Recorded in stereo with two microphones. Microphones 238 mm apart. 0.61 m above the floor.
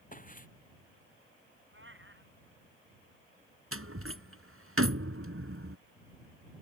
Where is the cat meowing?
55° right (ahead or behind).